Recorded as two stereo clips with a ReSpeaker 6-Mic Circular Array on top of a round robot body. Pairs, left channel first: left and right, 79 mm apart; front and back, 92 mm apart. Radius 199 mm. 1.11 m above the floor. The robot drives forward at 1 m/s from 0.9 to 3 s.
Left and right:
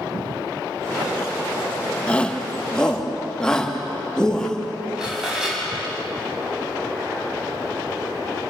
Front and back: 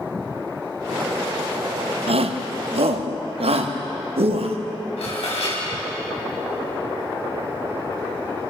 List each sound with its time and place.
2.1 s a shout: 165° left, 1.6 m; by 4.6 s 170° left, 2.5 m
5.0 s dishes clattering: 10° right, 6.5 m